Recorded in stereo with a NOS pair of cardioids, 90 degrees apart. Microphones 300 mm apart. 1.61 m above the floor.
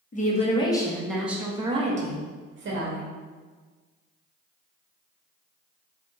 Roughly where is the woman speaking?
Ahead left.